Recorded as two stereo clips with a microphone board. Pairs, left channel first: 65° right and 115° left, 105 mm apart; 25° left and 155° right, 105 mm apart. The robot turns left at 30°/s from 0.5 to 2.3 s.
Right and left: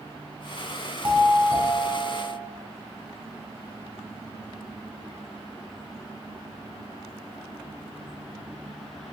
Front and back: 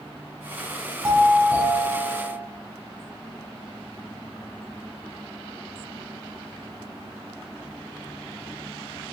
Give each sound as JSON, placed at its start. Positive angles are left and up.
{"t": 1.0, "sound": "a doorbell", "azimuth_deg": 165, "distance_m": 1.8}